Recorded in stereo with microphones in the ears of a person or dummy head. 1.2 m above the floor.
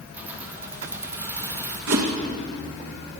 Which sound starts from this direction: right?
A whoosh, at 1.9 s.